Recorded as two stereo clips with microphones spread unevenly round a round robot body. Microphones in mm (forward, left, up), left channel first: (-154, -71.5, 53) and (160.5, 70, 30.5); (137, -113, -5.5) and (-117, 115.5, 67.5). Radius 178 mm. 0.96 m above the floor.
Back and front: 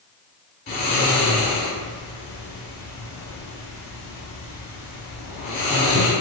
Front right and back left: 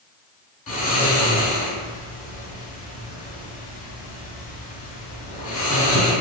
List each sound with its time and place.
0.7 s snoring: 95° right, 1.7 m